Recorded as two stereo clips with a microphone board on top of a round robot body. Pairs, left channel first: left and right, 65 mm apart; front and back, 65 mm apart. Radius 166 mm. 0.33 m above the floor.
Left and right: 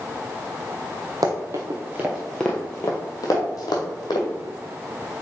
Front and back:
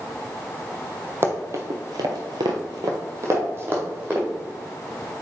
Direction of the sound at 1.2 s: 125° right.